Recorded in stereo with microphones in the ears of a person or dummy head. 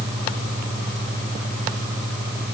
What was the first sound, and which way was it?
Only background noise.